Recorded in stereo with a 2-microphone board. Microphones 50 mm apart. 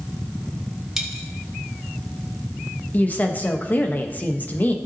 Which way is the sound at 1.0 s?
10° right (ahead or behind).